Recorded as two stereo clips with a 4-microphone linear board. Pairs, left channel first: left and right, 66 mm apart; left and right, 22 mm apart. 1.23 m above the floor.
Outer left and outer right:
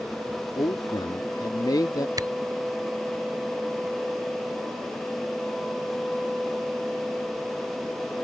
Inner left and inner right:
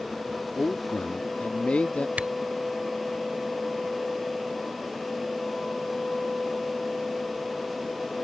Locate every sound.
0.6 s a man speaking: 85° left; by 2.1 s 80° left
2.2 s a camera shutter: 80° right